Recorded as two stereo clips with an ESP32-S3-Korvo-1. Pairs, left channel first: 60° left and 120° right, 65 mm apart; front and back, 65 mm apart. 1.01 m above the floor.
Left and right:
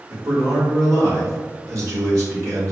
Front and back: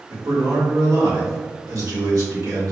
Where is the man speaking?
155° right, 1.4 m.